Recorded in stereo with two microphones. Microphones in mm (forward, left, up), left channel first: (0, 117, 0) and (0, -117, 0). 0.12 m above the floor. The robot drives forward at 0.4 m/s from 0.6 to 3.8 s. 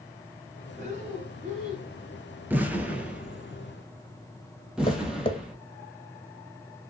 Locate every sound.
0.8 s breathing: 30° right (ahead or behind), 1.9 m
2.5 s an explosion: 10° right (ahead or behind), 0.5 m; by 5.5 s 5° right (ahead or behind), 1.0 m
4.9 s tapping: 25° left (ahead or behind), 0.5 m